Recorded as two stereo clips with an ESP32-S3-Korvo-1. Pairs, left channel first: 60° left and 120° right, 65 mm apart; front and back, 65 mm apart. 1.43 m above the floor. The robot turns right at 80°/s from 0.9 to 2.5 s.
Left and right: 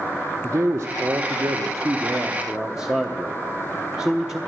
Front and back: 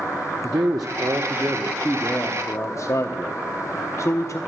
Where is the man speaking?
170° right, 0.7 m; by 4.4 s 40° right, 0.7 m.